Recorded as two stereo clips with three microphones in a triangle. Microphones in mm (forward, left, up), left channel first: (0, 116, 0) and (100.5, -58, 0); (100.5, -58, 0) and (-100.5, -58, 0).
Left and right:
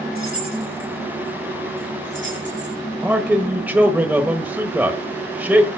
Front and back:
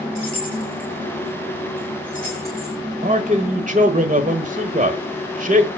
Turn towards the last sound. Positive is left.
turn(degrees=-140)